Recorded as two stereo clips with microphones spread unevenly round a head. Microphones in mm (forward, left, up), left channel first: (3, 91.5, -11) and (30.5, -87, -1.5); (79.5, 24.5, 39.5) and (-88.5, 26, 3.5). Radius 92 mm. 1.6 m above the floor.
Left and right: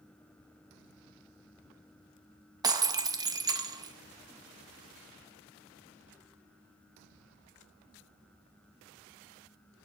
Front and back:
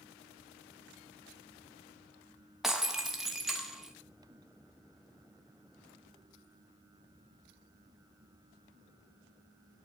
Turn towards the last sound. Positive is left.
turn(degrees=-65)